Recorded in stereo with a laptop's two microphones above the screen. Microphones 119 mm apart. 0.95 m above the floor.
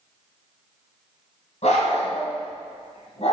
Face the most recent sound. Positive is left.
turn(degrees=65)  # may be behind; listen again after turning